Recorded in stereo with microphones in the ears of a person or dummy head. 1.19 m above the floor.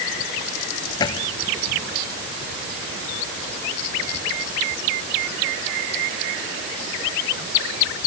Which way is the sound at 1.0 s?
20° left (ahead or behind).